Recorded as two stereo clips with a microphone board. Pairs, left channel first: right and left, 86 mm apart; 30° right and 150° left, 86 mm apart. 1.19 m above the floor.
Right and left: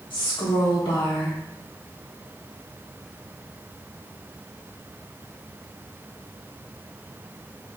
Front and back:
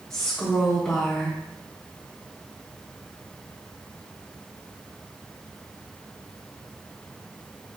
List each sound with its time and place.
0.1 s a woman speaking: 105° right, 1.3 m